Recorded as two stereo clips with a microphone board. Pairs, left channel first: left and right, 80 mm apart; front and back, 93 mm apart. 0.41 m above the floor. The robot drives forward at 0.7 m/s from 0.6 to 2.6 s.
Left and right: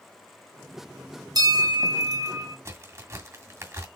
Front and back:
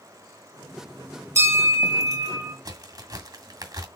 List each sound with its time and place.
1.4 s a bell: 120° right, 3.5 m; by 2.5 s 130° right, 4 m
2.6 s a crack: 140° right, 2.0 m